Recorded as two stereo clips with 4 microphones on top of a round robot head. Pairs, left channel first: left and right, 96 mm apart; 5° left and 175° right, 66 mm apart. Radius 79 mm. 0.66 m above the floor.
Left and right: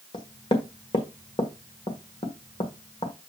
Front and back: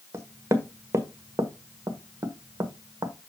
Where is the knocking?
135° left, 1.5 m.